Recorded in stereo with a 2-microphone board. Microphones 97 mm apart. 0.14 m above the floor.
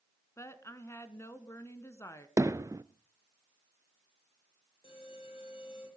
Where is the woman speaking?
30° left (ahead or behind), 1.4 m.